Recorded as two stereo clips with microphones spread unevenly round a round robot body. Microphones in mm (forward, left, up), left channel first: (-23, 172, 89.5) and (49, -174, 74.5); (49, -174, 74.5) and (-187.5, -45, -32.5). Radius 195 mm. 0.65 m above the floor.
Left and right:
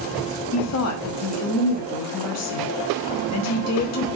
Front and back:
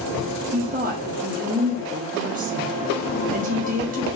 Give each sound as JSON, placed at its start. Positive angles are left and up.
{"t": 0.5, "sound": "a woman speaking", "azimuth_deg": 135, "distance_m": 1.1}